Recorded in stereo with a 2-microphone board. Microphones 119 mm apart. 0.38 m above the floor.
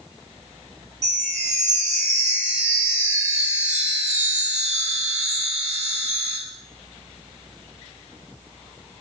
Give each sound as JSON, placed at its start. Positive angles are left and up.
{"t": 1.0, "sound": "a chime", "side_deg": -60, "distance_m": 0.7}